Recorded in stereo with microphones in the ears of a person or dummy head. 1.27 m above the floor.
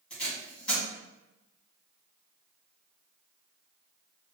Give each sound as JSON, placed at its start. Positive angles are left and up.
{"t": 0.1, "sound": "tape being pulled", "side_deg": 5, "distance_m": 1.6}